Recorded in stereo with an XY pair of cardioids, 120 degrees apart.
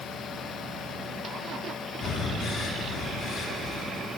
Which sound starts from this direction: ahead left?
Breathing, at 2.0 s.